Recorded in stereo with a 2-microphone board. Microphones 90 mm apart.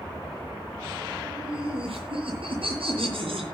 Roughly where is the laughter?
Right.